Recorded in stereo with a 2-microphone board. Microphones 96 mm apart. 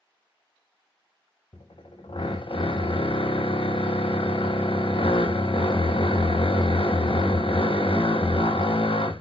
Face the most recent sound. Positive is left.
turn(degrees=65)  # may be behind; listen again after turning